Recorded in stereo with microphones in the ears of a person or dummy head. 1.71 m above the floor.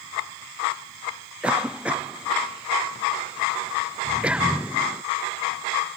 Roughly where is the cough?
Centre.